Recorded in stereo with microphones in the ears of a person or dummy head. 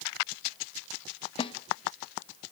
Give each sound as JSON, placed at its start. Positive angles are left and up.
{"t": 1.4, "sound": "a snare drum", "side_deg": 35, "distance_m": 0.9}